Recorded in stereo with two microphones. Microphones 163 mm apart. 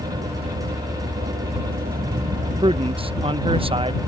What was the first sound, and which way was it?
A vehicle, 90° right.